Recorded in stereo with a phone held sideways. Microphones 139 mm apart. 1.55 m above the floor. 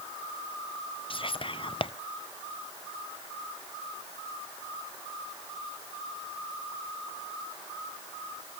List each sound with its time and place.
1.1 s whispering: 40° left (ahead or behind), 0.6 m